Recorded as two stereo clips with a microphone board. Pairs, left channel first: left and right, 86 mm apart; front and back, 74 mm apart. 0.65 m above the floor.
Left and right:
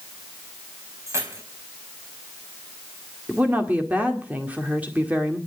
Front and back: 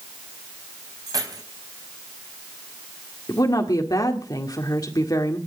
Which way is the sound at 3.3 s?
20° right.